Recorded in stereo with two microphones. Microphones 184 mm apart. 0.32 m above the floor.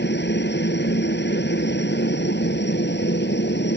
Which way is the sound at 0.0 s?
70° left (ahead or behind).